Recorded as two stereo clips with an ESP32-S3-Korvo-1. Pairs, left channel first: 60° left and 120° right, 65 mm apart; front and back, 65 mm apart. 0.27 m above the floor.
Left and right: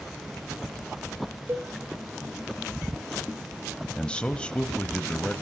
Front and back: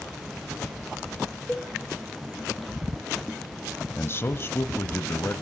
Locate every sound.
1.5 s a cowbell: 75° right, 1.1 m
4.0 s a man speaking: straight ahead, 1.2 m